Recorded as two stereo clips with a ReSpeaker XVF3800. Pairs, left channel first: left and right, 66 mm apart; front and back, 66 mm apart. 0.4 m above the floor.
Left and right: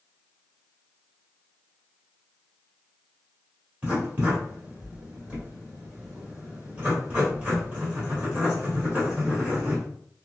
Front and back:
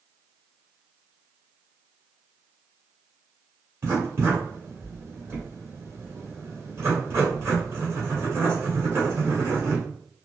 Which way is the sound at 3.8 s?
150° right.